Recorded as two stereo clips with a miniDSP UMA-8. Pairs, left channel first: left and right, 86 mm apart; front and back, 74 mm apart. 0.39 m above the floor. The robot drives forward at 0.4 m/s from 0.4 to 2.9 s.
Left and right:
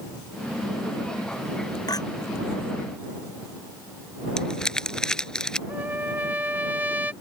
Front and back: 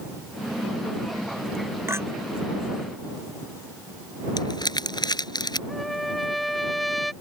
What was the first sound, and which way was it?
A clink, 125° left.